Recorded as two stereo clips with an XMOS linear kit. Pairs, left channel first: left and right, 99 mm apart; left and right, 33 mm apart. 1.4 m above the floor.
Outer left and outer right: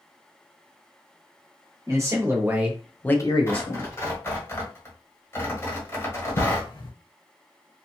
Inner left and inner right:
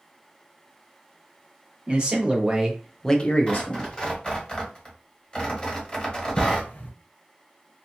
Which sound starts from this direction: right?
A man speaking, at 1.9 s.